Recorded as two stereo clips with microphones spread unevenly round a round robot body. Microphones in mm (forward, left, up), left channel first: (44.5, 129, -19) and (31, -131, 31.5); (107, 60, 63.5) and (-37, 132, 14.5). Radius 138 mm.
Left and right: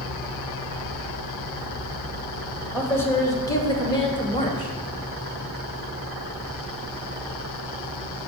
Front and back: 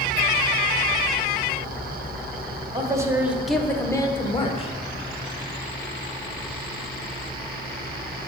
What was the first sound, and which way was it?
A man speaking, 155° left.